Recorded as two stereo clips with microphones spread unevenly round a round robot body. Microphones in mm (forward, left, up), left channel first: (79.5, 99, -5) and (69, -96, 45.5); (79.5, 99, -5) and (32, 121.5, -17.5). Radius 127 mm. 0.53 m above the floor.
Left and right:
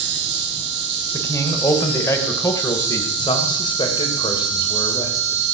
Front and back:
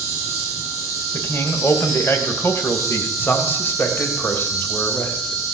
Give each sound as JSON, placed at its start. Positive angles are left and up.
{"t": 0.0, "sound": "an insect", "azimuth_deg": -60, "distance_m": 3.5}
{"t": 1.1, "sound": "a man speaking", "azimuth_deg": 15, "distance_m": 2.5}
{"t": 3.2, "sound": "a man speaking", "azimuth_deg": 30, "distance_m": 2.5}